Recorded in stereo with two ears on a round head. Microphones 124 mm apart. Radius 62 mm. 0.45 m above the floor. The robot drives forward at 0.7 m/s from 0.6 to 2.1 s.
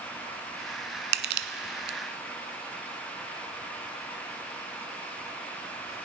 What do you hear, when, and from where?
1.1 s crushing: 85° right, 1.1 m; by 2.0 s 65° right (ahead or behind), 1.2 m